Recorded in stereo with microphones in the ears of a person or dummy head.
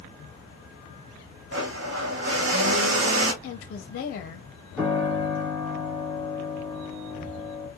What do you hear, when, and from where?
1.5 s a blender: 70° right (ahead or behind), 0.7 m
3.4 s a woman speaking: 50° left (ahead or behind), 0.5 m
4.8 s a piano: 5° left (ahead or behind), 1.7 m